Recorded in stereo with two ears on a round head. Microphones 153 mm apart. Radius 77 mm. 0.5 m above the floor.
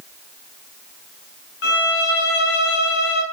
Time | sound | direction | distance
1.6 | a violin | 65° left (ahead or behind) | 3.5 m